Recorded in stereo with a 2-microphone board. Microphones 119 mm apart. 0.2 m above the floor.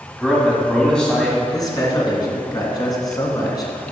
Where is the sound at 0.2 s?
5° left (ahead or behind), 1.4 m.